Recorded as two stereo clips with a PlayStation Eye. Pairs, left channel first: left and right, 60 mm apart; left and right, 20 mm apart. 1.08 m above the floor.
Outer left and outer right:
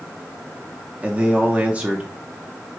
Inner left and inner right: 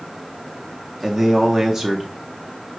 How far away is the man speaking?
About 0.7 m.